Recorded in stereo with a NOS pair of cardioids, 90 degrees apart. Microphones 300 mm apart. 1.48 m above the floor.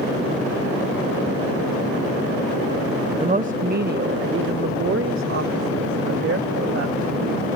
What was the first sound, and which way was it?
A woman speaking, 20° right.